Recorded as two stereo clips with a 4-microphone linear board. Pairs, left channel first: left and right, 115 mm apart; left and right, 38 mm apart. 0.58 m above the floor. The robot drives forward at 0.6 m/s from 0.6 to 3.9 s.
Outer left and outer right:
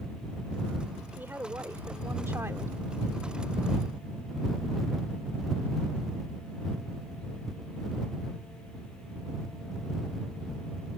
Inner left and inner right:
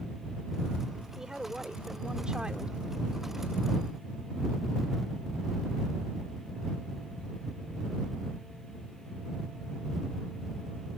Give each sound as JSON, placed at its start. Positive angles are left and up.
{"t": 1.1, "sound": "a woman speaking", "side_deg": -15}